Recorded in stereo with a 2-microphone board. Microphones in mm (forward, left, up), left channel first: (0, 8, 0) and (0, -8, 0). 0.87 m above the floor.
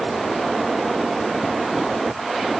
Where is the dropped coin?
I don't hear a dropped coin.